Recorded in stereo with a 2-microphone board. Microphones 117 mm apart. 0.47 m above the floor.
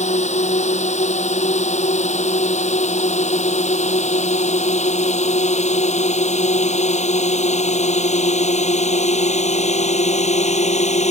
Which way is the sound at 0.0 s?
80° left.